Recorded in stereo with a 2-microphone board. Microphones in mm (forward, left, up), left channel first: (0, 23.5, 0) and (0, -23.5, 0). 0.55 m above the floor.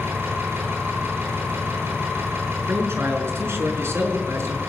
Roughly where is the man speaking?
Right.